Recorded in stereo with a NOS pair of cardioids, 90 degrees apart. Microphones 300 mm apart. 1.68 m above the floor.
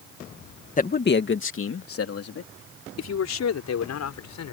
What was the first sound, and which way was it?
A man speaking, 25° left.